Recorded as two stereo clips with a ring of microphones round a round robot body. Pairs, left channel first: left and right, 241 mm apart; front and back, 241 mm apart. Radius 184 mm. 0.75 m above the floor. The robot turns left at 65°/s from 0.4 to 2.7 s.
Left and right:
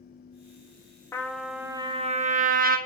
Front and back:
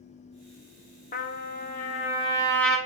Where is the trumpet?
20° left, 1.2 m; by 2.8 s 85° right, 1.2 m.